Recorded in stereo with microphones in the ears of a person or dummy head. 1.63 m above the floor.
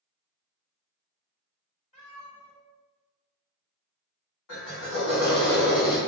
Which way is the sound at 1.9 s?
35° left (ahead or behind).